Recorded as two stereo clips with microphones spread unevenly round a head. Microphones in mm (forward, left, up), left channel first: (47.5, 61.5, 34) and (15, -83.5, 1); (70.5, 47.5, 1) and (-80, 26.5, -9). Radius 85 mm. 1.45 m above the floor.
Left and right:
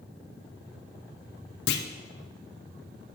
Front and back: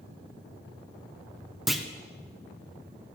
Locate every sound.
1.7 s a clunk: 100° left, 0.6 m